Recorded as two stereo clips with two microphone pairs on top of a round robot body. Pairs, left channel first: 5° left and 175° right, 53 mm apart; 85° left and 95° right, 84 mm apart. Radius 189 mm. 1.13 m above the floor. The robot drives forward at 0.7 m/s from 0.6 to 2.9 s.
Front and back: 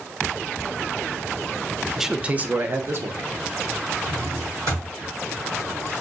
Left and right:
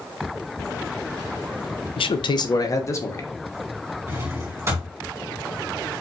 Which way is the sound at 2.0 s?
100° left.